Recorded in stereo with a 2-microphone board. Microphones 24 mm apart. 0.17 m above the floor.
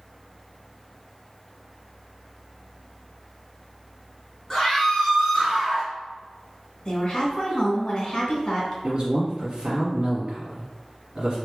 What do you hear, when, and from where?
4.5 s a scream: 10° left (ahead or behind), 1.4 m; by 5.9 s 25° right (ahead or behind), 1.5 m
6.8 s a woman speaking: 30° left (ahead or behind), 1.4 m
8.8 s a man speaking: 35° right (ahead or behind), 1.3 m